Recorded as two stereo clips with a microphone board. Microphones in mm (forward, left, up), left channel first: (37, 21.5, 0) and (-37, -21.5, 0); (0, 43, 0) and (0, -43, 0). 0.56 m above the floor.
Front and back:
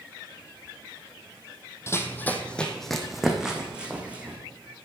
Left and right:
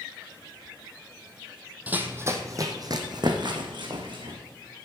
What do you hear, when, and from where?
1.9 s running footsteps: 20° right, 1.1 m; by 4.4 s 75° right, 2.5 m